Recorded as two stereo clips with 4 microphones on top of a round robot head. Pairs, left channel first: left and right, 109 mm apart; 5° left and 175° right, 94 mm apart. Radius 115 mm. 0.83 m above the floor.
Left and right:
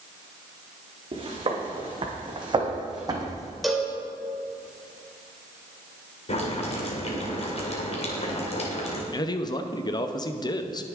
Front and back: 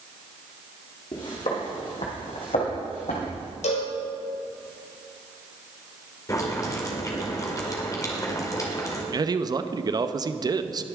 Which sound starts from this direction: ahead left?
Boiling, at 6.3 s.